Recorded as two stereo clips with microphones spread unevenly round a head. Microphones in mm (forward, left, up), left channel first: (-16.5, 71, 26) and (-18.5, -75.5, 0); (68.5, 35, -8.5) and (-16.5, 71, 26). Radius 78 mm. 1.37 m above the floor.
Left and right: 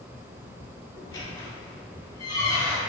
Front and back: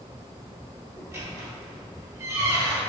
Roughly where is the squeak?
Behind left.